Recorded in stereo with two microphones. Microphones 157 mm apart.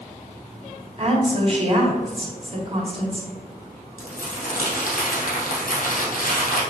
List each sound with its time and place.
1.0 s a woman speaking: 40° right (ahead or behind), 1.7 m
4.0 s crumpling: 70° left (ahead or behind), 2.5 m